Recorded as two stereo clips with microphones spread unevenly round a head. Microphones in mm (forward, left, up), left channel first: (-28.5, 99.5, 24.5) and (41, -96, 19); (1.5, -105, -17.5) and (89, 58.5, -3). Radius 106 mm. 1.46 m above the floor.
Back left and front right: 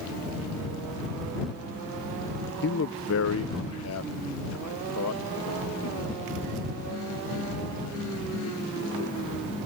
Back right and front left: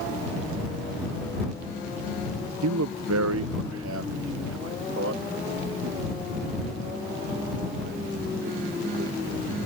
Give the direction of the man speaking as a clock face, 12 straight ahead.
10 o'clock.